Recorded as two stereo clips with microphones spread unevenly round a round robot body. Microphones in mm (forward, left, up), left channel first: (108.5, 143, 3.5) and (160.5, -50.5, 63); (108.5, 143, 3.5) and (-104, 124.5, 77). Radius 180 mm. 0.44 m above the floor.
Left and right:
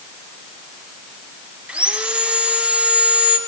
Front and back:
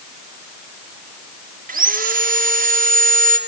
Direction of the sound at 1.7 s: 160° left.